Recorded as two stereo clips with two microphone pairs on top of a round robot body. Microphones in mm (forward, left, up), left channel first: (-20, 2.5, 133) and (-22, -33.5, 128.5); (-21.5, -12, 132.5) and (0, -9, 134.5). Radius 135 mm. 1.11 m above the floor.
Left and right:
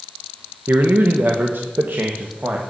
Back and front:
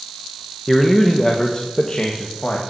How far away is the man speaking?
About 1.4 m.